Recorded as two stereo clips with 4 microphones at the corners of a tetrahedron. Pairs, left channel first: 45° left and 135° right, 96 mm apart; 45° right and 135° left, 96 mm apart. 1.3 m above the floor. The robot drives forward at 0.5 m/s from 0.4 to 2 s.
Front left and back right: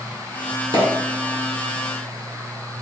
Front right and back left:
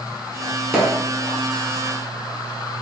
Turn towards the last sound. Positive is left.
turn(degrees=60)